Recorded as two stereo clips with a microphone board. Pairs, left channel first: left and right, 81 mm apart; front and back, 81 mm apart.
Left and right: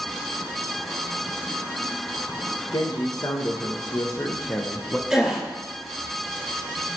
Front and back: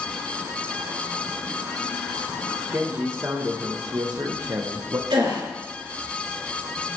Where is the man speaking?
125° left, 1.9 m; by 5.0 s 165° left, 1.1 m.